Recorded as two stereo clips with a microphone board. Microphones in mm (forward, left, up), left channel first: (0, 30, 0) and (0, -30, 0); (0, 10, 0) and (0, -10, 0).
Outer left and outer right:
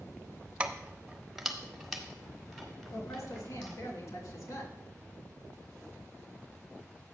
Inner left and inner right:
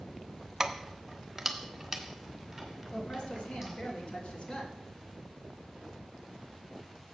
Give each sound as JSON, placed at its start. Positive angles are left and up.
{"t": 0.6, "sound": "keys jangling", "side_deg": -20, "distance_m": 0.8}
{"t": 2.9, "sound": "a woman speaking", "side_deg": 65, "distance_m": 3.0}